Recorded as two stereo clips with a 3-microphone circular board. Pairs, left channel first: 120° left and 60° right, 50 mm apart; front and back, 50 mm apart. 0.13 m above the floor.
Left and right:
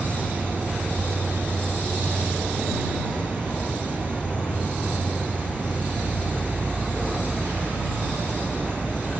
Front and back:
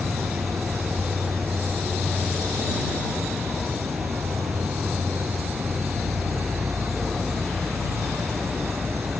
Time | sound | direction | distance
0.0 | an insect | 170° right | ?